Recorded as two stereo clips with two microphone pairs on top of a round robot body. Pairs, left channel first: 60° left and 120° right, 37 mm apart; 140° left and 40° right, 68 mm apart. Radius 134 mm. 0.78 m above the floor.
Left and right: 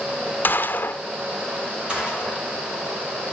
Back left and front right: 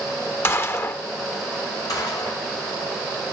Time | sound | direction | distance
0.4 | a gunshot | 80° left | 1.0 m
1.9 | a gunshot | 170° left | 4.5 m